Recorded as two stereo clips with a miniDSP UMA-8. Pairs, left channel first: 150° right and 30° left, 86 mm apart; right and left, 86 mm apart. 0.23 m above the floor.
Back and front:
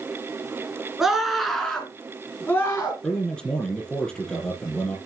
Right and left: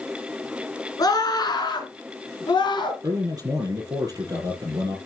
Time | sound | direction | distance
1.0 | a scream | 55° right | 2.5 m
3.0 | a man speaking | 130° left | 6.5 m